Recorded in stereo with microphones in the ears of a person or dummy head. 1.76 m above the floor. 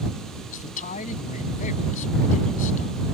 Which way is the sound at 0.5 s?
45° left (ahead or behind).